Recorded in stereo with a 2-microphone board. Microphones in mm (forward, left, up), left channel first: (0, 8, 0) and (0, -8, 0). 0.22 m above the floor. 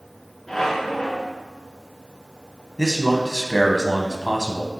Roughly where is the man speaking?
Left.